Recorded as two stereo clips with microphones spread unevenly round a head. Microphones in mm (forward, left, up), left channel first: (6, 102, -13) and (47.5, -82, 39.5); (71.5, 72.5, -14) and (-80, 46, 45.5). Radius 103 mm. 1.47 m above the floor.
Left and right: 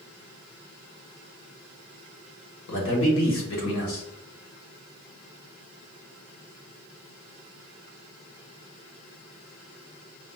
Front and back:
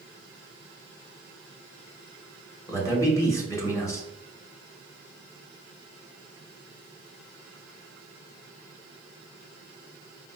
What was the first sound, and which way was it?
A man speaking, 85° left.